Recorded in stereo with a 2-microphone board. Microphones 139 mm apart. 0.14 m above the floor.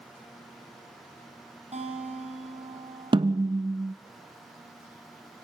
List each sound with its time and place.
1.7 s a guitar: 50° right (ahead or behind), 4.5 m
3.1 s a snare drum: 35° right (ahead or behind), 0.9 m